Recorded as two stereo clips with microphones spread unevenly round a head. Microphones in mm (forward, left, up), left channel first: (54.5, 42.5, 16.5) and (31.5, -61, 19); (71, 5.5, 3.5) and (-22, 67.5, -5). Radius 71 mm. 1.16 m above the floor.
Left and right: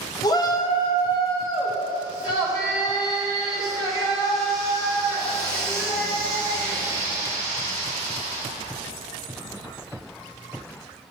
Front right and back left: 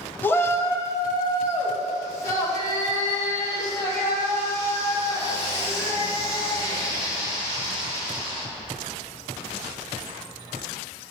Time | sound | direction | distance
0.2 | a shout | 40° left | 0.8 m